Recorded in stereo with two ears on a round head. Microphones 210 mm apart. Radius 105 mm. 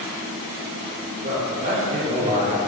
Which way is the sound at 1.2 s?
40° right (ahead or behind).